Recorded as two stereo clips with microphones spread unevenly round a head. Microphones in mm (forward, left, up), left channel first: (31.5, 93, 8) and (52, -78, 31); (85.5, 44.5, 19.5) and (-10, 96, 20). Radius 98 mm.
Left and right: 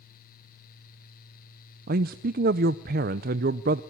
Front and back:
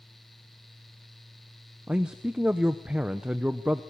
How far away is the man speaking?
About 0.5 m.